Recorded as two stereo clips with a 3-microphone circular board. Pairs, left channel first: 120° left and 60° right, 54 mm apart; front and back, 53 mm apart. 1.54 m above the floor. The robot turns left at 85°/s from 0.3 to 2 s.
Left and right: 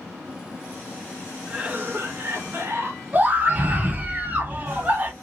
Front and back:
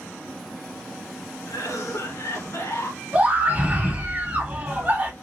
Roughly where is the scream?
Behind right.